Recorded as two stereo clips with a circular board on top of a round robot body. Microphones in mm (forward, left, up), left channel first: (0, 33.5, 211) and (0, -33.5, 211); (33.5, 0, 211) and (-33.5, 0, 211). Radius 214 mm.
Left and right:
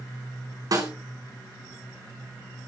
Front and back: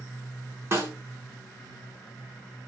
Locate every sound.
0.7 s a snare drum: 125° right, 5 m